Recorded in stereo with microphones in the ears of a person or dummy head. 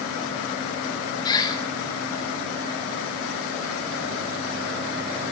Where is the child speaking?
No child speaking in this recording.